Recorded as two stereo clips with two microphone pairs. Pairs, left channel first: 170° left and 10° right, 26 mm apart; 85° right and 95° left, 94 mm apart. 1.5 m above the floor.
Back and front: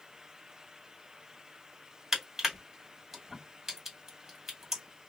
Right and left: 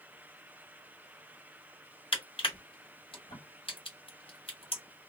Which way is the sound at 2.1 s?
80° right.